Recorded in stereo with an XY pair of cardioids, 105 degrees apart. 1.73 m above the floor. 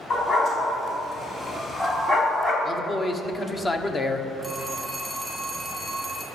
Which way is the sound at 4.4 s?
10° left.